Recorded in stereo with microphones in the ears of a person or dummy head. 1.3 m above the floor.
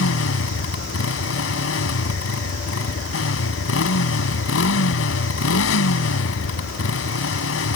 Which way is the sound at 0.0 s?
70° left (ahead or behind).